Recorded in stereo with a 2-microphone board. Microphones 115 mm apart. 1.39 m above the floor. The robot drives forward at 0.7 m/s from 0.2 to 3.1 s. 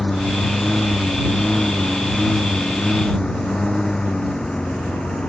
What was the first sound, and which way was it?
A lawn mower, 5° left (ahead or behind).